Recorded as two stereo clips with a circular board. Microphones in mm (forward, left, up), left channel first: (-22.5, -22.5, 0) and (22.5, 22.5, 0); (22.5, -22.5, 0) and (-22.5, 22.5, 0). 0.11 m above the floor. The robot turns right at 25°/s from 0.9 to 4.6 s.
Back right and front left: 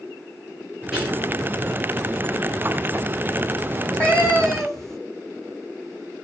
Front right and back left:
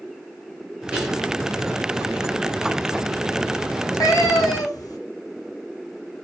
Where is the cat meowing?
75° right, 0.7 m; by 5.0 s 50° right, 0.7 m.